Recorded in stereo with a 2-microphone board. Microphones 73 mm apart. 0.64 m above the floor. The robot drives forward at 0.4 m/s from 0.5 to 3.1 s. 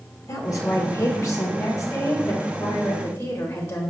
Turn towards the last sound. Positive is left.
turn(degrees=35)  # may be behind; listen again after turning